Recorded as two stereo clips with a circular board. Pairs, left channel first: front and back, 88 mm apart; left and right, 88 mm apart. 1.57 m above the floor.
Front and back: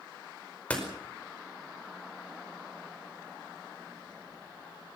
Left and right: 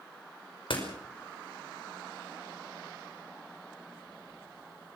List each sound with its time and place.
0.7 s a door slam: 75° left, 5 m